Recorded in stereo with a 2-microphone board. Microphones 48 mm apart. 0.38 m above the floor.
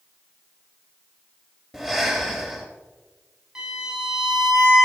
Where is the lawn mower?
No lawn mower in this recording.